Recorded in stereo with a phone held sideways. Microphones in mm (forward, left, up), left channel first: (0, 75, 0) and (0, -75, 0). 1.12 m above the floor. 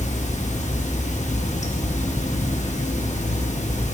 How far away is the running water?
About 0.8 m.